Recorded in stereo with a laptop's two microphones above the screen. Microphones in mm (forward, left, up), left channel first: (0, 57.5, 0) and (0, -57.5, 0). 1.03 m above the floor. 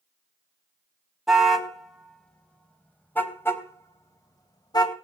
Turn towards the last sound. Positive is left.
turn(degrees=35)  # may be behind; listen again after turning